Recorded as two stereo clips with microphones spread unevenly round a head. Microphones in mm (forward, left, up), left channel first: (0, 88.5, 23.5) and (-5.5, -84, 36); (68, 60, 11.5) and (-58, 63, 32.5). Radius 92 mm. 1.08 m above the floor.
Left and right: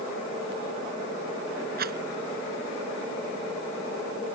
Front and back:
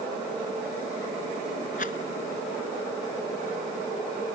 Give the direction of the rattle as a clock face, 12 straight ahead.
2 o'clock.